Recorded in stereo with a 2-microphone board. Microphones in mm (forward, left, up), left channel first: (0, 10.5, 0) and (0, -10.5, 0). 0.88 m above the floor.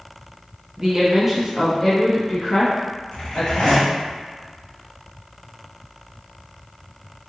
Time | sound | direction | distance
0.8 | a woman speaking | 30° right (ahead or behind) | 0.8 m
3.1 | a zipper | 55° left (ahead or behind) | 0.9 m